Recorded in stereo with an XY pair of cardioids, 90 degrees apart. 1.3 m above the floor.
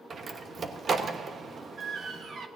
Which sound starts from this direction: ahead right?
A door slam, at 0.1 s.